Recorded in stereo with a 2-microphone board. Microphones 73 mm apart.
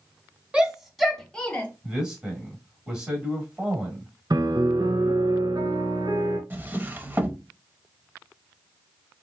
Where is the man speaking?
10° right (ahead or behind), 1.7 m.